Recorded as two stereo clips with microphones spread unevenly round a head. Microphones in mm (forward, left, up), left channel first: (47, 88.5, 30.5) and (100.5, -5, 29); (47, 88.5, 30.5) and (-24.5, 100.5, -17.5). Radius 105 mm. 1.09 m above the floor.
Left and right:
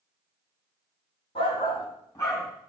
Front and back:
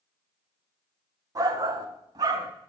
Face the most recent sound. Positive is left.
turn(degrees=-160)